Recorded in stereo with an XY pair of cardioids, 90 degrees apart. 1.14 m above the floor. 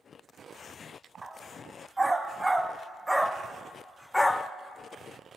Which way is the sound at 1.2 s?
25° right.